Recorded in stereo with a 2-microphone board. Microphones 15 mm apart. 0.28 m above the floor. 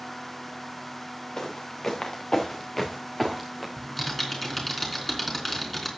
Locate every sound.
1.4 s footsteps: 45° left (ahead or behind), 3 m; by 3.7 s 5° left (ahead or behind), 1.9 m
3.8 s typing on a keyboard: 20° left (ahead or behind), 3.5 m